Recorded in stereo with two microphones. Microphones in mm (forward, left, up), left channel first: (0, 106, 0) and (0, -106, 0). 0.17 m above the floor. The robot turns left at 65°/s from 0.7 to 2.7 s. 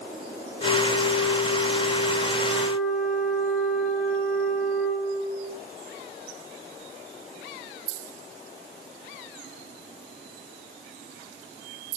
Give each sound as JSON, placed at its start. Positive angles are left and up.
{"t": 0.6, "sound": "a flute", "azimuth_deg": 145, "distance_m": 4.5}